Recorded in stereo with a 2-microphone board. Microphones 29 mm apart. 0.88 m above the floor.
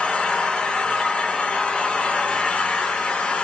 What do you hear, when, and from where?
0.0 s an engine running: 40° left (ahead or behind), 1.0 m